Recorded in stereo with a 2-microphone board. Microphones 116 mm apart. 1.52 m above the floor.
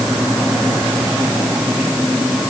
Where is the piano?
No piano in this recording.